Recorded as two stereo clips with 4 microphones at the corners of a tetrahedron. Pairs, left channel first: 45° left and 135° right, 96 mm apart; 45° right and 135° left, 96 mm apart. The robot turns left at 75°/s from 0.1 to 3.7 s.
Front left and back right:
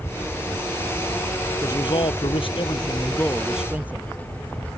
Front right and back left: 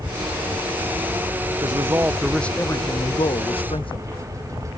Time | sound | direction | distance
1.6 | a man speaking | 95° left | ?